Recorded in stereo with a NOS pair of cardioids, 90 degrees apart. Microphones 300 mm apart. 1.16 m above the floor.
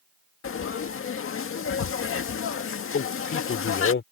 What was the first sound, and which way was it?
Frying, 45° left.